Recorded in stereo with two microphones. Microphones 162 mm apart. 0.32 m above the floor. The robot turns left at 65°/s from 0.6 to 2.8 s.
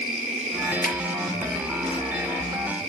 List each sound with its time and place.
0.8 s a finger snap: 60° left (ahead or behind), 4 m; by 0.9 s 65° left (ahead or behind), 4 m